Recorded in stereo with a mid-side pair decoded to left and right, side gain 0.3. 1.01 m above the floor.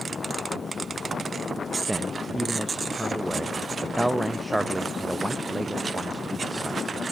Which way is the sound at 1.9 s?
15° right.